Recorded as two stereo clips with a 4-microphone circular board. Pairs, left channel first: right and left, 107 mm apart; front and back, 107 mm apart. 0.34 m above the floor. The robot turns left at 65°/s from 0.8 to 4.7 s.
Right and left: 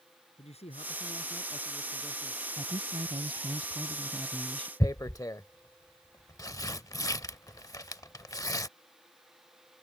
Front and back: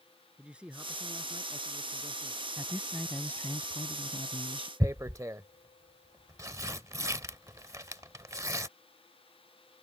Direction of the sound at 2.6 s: 120° left.